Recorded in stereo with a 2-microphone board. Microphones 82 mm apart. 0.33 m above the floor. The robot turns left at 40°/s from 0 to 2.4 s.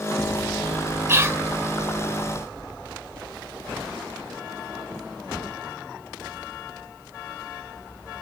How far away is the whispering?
About 1.4 m.